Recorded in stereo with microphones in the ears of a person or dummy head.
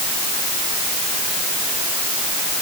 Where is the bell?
No bell in this recording.